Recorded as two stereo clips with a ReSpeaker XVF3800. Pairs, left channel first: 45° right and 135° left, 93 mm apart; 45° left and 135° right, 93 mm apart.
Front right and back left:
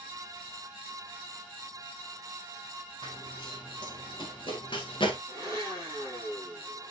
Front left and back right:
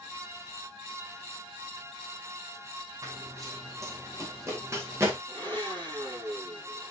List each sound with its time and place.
3.0 s running footsteps: 80° right, 5.5 m; by 5.2 s 75° right, 4 m
5.3 s a blender: 100° right, 5 m